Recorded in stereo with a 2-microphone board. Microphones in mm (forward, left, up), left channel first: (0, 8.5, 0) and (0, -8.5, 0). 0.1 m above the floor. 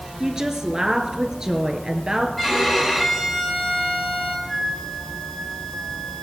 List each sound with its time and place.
0.2 s a woman speaking: 35° right (ahead or behind), 1.4 m
2.4 s a violin: 10° left (ahead or behind), 6 m
4.5 s a flute: 20° left (ahead or behind), 4 m